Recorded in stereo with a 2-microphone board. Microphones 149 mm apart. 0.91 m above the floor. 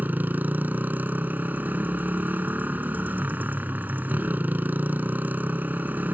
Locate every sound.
0.0 s a motorcycle: 10° right (ahead or behind)